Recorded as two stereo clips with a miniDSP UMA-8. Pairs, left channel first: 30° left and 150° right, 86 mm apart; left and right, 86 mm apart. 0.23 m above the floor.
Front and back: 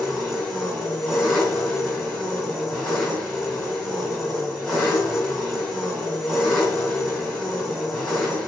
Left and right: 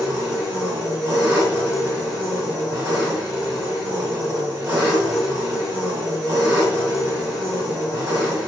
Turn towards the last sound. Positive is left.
turn(degrees=-55)